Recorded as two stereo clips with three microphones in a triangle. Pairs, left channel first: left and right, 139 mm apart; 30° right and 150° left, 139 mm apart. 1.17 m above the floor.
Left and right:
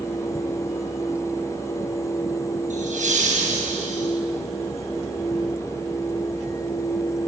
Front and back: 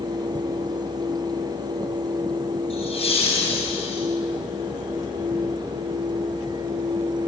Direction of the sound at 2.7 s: 70° right.